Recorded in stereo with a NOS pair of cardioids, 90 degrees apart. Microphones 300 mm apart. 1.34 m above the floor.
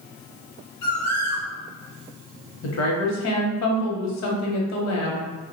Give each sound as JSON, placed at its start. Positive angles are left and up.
{"t": 0.8, "sound": "a bird", "azimuth_deg": 70, "distance_m": 1.1}
{"t": 2.6, "sound": "a woman speaking", "azimuth_deg": 65, "distance_m": 0.9}